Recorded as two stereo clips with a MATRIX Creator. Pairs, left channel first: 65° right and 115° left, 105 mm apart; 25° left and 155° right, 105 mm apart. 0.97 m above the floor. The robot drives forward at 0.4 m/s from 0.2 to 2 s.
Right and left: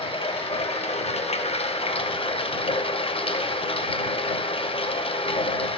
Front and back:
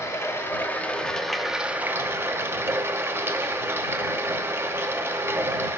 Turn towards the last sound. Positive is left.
turn(degrees=-90)